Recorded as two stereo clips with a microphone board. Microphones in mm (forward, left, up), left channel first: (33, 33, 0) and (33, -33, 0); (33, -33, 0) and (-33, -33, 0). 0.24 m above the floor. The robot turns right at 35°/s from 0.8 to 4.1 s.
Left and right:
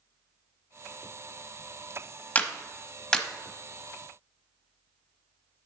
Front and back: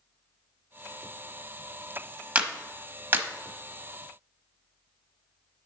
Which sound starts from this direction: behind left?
A clap, at 2.4 s.